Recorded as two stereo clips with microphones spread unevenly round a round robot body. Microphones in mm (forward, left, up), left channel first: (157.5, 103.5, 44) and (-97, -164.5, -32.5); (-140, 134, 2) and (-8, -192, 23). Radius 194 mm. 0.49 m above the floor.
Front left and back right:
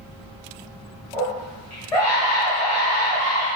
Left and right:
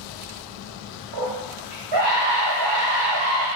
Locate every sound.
1.1 s a scream: 35° right, 2.5 m